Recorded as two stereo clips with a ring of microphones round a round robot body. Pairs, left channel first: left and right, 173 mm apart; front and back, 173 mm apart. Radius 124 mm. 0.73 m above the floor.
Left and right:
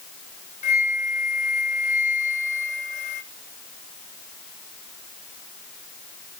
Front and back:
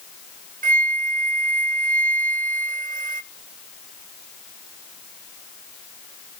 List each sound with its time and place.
0.6 s a flute: 140° left, 0.5 m